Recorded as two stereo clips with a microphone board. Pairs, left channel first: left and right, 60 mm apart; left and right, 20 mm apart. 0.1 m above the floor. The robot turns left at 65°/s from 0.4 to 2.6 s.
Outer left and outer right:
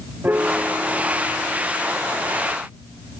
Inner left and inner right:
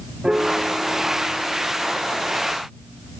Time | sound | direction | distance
0.2 | a piano | 150° right | ?